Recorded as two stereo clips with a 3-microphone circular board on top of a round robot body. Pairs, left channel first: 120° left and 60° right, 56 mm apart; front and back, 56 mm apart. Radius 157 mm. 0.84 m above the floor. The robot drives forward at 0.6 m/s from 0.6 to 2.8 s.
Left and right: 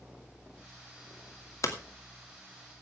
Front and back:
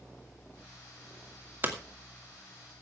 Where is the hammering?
125° left, 2.5 m; by 1.7 s 130° left, 2.5 m.